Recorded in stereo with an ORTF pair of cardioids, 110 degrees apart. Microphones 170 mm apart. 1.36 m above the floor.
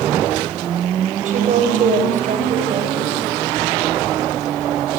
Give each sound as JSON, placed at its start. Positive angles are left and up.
{"t": 1.2, "sound": "a woman speaking", "azimuth_deg": -50, "distance_m": 8.0}